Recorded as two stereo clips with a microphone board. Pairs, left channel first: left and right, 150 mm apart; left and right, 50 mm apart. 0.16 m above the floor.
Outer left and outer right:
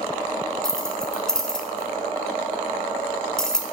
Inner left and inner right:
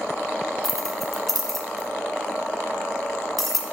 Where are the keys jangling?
5° left (ahead or behind), 1.2 m.